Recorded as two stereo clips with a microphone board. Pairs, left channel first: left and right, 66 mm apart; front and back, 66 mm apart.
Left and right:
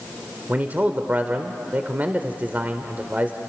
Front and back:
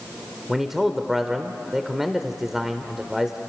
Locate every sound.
0.5 s a man speaking: 100° right, 1.1 m